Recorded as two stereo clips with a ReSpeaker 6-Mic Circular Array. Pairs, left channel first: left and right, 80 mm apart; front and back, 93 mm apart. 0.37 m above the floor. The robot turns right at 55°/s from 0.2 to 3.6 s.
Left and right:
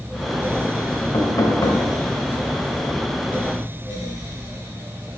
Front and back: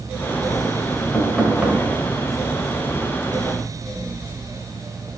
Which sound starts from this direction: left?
Knocking, at 1.1 s.